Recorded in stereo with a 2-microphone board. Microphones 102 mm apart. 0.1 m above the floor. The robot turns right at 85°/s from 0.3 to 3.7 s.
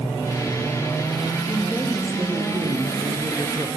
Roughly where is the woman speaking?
Behind left.